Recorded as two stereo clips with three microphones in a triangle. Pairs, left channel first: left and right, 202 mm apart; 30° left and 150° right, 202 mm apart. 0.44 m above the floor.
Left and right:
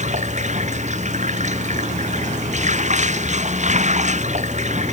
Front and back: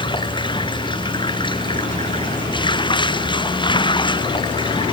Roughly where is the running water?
Ahead right.